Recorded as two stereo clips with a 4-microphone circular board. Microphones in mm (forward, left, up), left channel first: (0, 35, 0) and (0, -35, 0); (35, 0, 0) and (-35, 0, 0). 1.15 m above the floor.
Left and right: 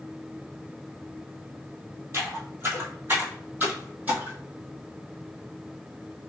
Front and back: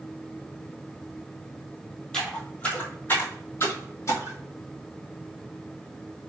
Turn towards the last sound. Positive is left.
turn(degrees=-25)